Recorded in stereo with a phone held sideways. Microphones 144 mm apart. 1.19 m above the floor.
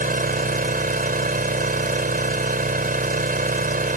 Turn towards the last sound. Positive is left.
turn(degrees=-85)